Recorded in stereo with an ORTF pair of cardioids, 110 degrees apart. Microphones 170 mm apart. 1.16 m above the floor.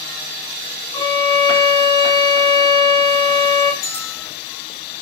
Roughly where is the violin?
Ahead left.